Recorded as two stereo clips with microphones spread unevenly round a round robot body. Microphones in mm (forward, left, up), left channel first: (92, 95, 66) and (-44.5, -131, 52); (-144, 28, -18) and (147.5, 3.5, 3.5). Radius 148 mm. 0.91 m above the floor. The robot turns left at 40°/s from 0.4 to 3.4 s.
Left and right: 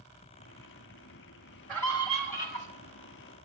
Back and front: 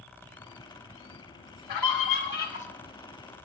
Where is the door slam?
No door slam in this recording.